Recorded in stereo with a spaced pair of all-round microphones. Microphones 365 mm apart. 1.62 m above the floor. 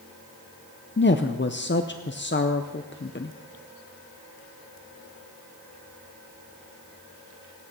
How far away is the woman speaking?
About 0.6 m.